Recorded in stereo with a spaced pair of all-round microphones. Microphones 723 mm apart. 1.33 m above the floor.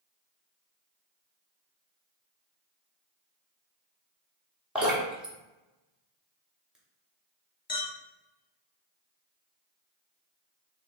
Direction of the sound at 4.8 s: Centre (ahead or behind).